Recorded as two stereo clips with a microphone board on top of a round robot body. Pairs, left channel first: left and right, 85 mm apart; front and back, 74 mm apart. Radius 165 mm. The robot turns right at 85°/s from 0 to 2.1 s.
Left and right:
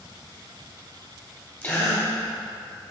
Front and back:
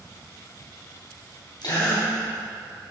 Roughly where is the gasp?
Ahead.